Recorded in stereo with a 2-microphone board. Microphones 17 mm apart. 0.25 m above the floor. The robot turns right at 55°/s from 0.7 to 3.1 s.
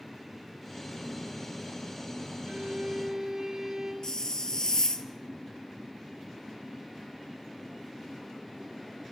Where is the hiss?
40° left (ahead or behind), 1.5 m.